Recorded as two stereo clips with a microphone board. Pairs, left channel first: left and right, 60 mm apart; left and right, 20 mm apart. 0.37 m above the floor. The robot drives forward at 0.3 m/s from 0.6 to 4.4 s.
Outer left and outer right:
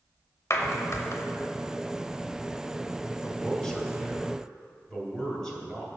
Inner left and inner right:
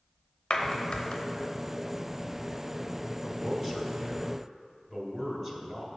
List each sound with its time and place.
0.5 s a clap: 50° left (ahead or behind), 1.0 m; by 1.2 s 55° left (ahead or behind), 1.0 m
3.2 s a man speaking: 10° left (ahead or behind), 1.5 m